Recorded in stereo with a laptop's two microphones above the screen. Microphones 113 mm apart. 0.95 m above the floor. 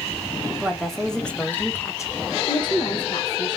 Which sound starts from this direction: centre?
A woman speaking, at 0.5 s.